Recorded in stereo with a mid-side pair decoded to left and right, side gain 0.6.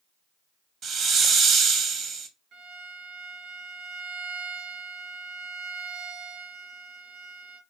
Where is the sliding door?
No sliding door in this recording.